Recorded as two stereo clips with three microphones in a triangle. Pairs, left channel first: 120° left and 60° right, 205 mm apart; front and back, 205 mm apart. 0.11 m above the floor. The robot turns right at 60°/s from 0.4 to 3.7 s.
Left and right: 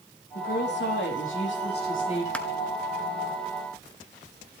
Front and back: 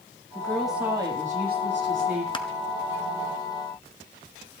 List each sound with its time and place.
0.3 s a woman speaking: 75° left, 4.5 m; by 2.2 s 175° right, 4.5 m
2.3 s crushing: 40° left, 1.0 m; by 2.5 s 50° left, 1.0 m